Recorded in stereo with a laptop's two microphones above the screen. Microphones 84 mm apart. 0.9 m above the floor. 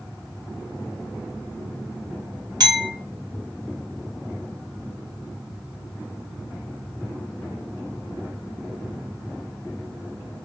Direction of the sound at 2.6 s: 55° right (ahead or behind).